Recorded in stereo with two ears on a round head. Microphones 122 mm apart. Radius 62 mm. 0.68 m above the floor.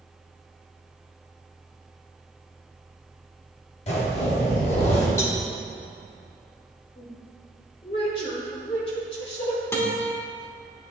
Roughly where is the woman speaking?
Left.